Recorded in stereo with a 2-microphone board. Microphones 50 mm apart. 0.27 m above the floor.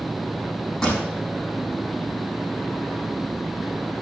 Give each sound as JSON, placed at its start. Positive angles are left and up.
{"t": 0.8, "sound": "a pop", "side_deg": 10, "distance_m": 5.5}